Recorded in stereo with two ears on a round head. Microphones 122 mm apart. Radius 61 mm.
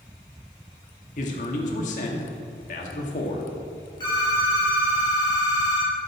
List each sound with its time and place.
1.2 s a man speaking: 55° left (ahead or behind), 1.7 m
4.0 s a phone ringing: 35° left (ahead or behind), 3 m